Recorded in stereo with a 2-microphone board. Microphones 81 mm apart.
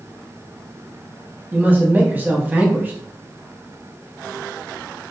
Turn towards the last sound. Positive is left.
turn(degrees=-25)  # may be behind; listen again after turning